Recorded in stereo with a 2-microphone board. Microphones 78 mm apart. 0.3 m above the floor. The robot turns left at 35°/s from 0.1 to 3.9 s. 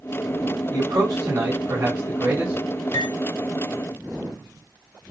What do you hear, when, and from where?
0.7 s a man speaking: 90° right, 1.6 m; by 2.5 s 155° right, 1.6 m
2.9 s cutlery clinking: 80° left, 2.5 m; by 3.1 s 75° left (ahead or behind), 2.5 m